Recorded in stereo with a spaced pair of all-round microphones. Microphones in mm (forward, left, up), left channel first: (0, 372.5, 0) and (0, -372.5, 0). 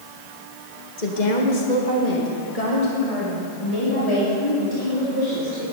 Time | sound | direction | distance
1.0 | a woman speaking | 75° left (ahead or behind) | 1.9 m